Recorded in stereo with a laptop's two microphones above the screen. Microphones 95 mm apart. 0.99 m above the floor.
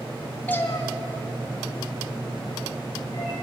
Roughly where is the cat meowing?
Centre.